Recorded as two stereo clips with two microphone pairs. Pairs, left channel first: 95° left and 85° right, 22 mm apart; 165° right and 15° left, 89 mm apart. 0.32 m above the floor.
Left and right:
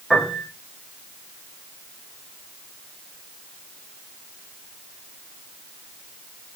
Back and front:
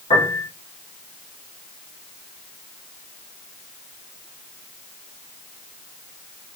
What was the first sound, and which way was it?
A piano, 175° right.